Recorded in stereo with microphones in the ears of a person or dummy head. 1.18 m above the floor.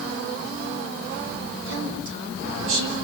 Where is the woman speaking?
70° right (ahead or behind), 5 m; by 2.9 s 80° right, 5.5 m.